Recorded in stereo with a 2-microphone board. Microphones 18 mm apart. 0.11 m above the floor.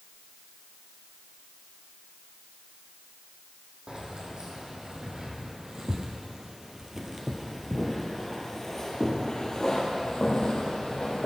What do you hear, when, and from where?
3.9 s keys jangling: 55° right (ahead or behind), 3 m; by 11.3 s 60° left (ahead or behind), 2.5 m